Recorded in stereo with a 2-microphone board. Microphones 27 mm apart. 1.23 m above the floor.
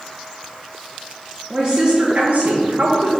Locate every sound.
1.5 s a woman speaking: 25° right (ahead or behind), 1.0 m; by 3.2 s 75° right (ahead or behind), 1.5 m